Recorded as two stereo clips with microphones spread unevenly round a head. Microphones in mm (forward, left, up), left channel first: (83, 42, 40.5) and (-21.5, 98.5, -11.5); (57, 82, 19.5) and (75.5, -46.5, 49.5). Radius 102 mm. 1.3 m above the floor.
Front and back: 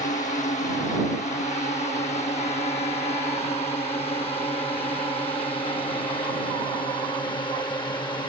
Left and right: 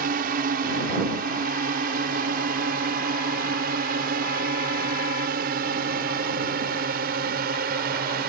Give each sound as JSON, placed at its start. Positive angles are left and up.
{"t": 0.0, "sound": "a drone", "azimuth_deg": -85}